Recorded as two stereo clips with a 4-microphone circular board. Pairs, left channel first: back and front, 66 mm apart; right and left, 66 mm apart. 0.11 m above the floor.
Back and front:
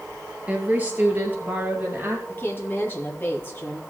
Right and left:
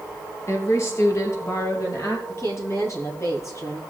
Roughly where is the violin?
I don't hear a violin.